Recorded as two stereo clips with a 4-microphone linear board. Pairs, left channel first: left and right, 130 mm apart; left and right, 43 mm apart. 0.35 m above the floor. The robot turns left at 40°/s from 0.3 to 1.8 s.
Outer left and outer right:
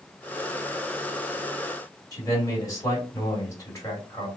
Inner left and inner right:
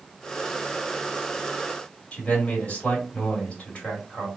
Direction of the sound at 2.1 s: 25° left (ahead or behind).